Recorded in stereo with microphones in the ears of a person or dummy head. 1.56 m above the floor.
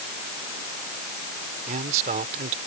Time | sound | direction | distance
1.7 | a man speaking | 45° right (ahead or behind) | ?